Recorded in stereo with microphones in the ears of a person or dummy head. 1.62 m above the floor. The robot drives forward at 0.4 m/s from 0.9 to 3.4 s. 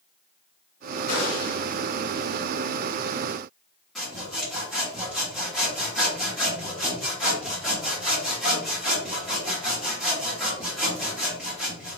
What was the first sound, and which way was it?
A gunshot, 45° left (ahead or behind).